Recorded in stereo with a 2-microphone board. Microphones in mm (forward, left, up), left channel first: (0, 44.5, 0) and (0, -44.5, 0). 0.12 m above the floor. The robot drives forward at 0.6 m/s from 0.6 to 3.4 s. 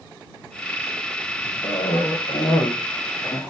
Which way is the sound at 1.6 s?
65° left (ahead or behind).